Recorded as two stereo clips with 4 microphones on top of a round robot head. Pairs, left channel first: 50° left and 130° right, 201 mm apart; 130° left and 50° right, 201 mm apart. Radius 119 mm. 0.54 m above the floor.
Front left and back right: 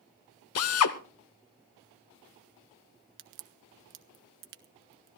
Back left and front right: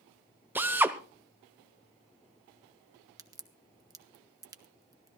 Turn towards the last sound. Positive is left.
turn(degrees=-120)